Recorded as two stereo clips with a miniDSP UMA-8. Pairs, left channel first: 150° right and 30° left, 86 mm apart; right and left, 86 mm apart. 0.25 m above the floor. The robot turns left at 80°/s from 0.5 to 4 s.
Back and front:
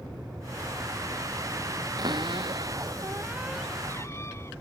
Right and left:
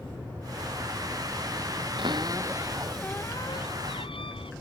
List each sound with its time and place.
2.0 s a cupboard door: 70° left; by 4.5 s 90° right